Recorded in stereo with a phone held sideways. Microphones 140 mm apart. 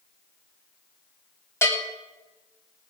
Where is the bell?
20° left (ahead or behind), 3 m.